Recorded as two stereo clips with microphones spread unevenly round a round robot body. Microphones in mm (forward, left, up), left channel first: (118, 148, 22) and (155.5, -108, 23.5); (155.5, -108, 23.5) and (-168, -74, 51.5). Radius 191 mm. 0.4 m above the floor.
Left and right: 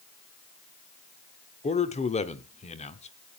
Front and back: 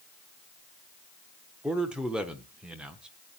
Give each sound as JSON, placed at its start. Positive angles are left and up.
{"t": 1.6, "sound": "a man speaking", "azimuth_deg": 80, "distance_m": 1.1}